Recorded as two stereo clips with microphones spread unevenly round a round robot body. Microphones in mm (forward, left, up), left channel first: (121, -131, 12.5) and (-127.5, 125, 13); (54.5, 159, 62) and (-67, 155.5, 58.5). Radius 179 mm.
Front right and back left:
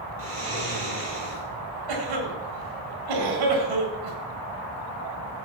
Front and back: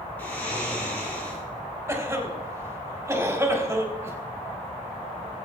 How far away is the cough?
About 4 m.